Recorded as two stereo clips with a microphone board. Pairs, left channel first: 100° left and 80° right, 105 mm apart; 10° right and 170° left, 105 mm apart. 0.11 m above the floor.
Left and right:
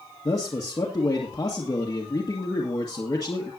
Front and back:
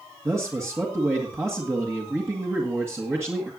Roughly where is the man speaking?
Behind left.